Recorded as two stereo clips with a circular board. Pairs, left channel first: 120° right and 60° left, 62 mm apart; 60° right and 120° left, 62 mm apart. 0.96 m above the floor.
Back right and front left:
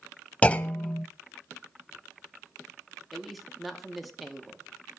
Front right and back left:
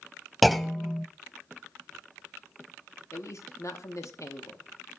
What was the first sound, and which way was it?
A clunk, 150° right.